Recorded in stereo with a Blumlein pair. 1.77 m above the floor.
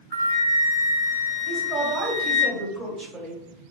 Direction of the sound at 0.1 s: 70° right.